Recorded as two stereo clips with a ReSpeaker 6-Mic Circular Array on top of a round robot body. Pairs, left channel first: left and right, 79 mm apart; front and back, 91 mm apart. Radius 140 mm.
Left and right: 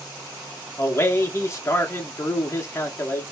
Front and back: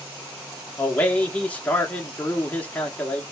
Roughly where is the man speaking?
Ahead left.